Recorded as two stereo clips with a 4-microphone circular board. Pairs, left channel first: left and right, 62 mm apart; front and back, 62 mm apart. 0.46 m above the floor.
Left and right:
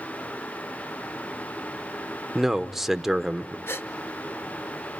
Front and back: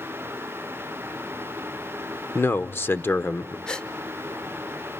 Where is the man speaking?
10° right, 0.9 m.